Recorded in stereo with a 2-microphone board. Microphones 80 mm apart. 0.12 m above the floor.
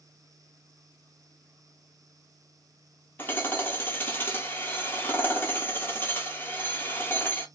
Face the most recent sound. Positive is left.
turn(degrees=25)  # may be behind; listen again after turning